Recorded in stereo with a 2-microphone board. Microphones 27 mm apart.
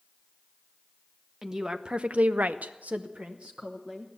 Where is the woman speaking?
15° right (ahead or behind), 1.0 m; by 4.1 s 35° right (ahead or behind), 1.5 m.